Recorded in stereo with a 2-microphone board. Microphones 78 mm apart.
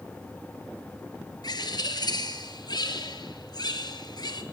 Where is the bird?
60° left (ahead or behind), 2 m.